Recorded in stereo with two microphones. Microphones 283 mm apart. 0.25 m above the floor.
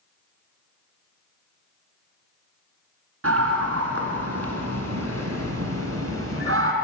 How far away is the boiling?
I don't hear boiling.